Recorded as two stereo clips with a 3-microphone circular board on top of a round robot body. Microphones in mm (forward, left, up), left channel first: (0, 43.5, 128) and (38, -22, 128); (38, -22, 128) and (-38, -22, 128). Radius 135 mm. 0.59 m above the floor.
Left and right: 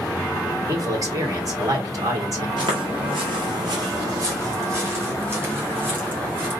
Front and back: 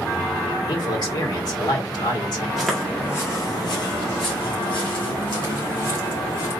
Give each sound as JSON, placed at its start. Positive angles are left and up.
{"t": 0.7, "sound": "a man speaking", "azimuth_deg": -25, "distance_m": 2.0}
{"t": 2.6, "sound": "footsteps", "azimuth_deg": -95, "distance_m": 1.0}